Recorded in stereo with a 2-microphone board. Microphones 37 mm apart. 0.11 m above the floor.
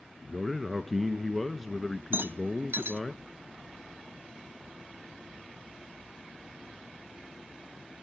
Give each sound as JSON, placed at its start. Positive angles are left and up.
{"t": 0.2, "sound": "a man speaking", "side_deg": 0, "distance_m": 1.1}
{"t": 2.1, "sound": "a rattle", "side_deg": -70, "distance_m": 1.3}